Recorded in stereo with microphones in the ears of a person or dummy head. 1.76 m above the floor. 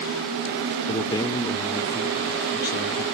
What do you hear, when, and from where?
0.9 s a man speaking: 20° left (ahead or behind), 0.6 m